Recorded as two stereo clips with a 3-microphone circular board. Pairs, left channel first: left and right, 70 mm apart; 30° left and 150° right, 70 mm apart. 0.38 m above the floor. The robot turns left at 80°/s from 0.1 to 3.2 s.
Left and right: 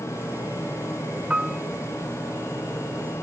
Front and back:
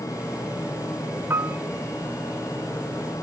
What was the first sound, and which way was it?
A piano, 155° right.